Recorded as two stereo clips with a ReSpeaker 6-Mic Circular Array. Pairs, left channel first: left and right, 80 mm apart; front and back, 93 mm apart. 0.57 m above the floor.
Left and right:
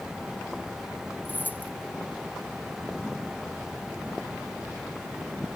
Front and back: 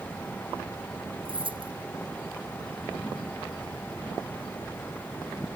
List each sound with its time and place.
1.2 s keys jangling: 155° left